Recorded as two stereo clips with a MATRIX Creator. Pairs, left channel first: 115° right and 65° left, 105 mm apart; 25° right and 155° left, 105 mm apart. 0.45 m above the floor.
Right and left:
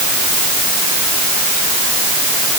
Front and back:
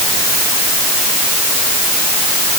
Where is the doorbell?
I don't hear a doorbell.